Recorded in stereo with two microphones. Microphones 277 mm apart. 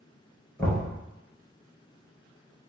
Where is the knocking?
5° left (ahead or behind), 1.5 m.